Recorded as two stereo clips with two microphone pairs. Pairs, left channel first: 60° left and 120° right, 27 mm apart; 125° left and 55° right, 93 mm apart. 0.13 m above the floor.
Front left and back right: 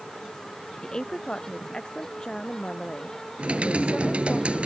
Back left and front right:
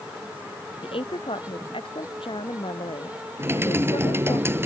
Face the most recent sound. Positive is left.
turn(degrees=-115)